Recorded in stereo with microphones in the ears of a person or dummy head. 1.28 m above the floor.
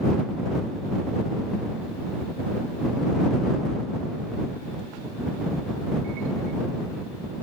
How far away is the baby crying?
No baby crying in this recording.